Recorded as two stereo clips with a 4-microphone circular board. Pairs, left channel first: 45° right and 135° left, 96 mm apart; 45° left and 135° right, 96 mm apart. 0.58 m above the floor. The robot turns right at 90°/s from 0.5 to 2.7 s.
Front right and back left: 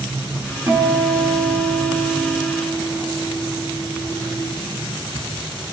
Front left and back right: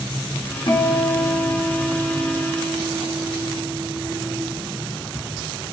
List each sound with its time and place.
0.7 s a guitar: 85° left, 3.5 m; by 4.4 s 95° right, 3.5 m